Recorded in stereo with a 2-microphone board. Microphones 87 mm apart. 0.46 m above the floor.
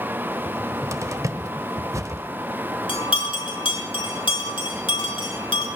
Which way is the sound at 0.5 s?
35° right (ahead or behind).